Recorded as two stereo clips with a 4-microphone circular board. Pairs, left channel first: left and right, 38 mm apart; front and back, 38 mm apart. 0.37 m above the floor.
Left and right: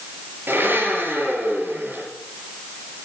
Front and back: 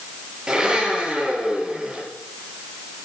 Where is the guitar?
No guitar in this recording.